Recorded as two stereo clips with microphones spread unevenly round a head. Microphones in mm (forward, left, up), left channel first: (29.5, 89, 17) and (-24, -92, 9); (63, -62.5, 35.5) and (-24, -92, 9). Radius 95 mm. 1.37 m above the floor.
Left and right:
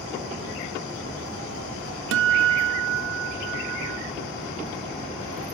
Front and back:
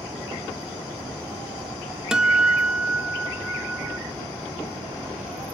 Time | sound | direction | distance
2.1 | a guitar | 80° right | 0.5 m